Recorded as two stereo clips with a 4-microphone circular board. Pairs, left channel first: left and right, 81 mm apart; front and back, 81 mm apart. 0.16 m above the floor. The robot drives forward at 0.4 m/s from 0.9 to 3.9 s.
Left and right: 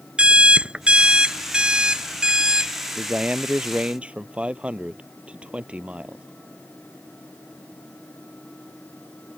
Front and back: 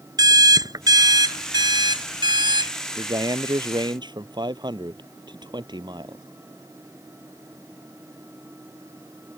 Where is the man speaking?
165° right.